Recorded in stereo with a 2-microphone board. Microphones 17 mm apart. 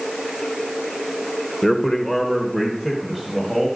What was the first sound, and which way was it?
A man speaking, 20° left (ahead or behind).